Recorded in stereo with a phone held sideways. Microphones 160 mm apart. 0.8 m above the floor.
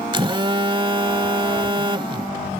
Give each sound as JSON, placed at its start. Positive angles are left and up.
{"t": 0.1, "sound": "a phone buzzing", "side_deg": -30}